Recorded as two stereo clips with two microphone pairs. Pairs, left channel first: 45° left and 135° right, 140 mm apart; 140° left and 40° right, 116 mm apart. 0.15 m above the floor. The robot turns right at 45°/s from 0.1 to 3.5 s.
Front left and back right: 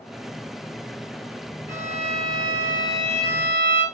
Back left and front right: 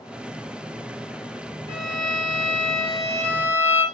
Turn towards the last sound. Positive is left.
turn(degrees=20)